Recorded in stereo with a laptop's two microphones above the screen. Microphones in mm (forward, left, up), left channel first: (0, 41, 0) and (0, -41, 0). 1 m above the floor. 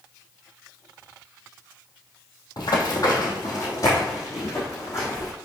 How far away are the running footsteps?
About 2 m.